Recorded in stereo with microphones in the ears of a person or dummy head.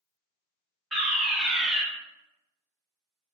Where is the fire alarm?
Centre (ahead or behind), 0.7 m.